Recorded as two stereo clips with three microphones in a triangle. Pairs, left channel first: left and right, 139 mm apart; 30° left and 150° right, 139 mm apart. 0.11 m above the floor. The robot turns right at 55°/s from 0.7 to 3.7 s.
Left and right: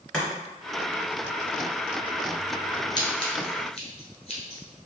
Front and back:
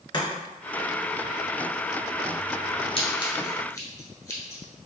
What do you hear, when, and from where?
0.1 s chopping: 15° left, 1.7 m
3.0 s scissors: 45° left, 1.1 m; by 4.9 s 85° left, 1.1 m